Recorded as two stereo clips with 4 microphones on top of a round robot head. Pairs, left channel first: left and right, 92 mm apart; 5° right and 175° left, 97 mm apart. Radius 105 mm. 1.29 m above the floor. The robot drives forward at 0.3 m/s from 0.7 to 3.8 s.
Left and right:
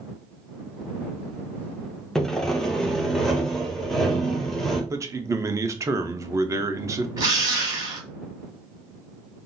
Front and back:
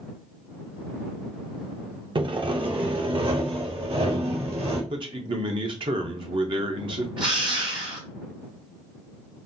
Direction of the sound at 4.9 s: 145° right.